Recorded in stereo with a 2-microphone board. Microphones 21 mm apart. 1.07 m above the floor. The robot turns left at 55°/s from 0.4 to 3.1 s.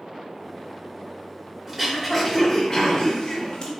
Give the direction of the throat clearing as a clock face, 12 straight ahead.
5 o'clock.